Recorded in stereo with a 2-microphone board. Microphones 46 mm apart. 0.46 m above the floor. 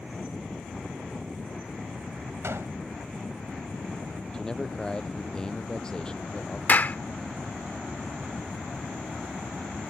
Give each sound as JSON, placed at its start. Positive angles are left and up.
{"t": 2.4, "sound": "a gunshot", "side_deg": -75}
{"t": 4.3, "sound": "a man speaking", "side_deg": 15}
{"t": 6.7, "sound": "a clap", "side_deg": 40}